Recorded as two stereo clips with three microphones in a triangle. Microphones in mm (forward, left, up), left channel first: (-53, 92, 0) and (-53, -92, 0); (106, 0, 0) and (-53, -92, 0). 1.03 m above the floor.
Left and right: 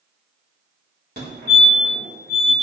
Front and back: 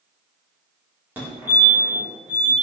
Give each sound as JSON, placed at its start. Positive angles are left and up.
{"t": 1.2, "sound": "a fire alarm", "azimuth_deg": -70, "distance_m": 4.5}